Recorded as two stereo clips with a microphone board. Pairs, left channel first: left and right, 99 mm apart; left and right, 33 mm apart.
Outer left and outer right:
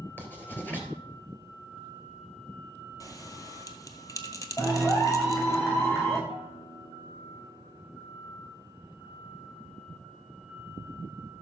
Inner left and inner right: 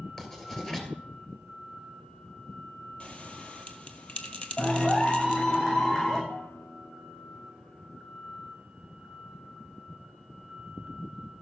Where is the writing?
20° left (ahead or behind), 2.5 m.